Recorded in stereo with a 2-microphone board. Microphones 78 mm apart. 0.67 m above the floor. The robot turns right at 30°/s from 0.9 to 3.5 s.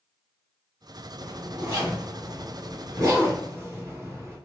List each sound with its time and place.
1.2 s a zipper: 60° right (ahead or behind), 2 m; by 4.4 s 35° right (ahead or behind), 2 m